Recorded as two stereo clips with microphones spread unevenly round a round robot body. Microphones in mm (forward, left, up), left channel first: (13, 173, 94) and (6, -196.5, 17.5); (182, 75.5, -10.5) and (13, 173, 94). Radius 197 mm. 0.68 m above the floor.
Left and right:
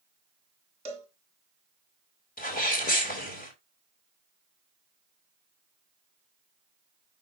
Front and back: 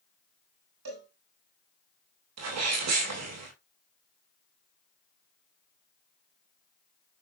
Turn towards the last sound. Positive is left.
turn(degrees=160)